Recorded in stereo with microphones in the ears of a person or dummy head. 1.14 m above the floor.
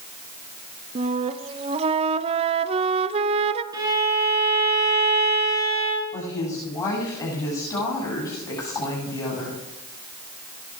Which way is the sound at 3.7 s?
20° right (ahead or behind).